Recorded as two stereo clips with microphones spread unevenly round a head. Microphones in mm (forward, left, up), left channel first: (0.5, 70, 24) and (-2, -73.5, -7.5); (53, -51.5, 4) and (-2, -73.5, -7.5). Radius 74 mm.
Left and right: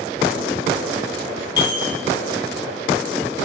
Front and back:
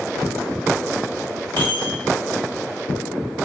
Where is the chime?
145° left, 1.1 m.